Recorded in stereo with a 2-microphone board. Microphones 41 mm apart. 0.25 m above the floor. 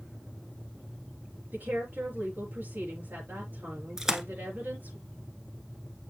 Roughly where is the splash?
Centre.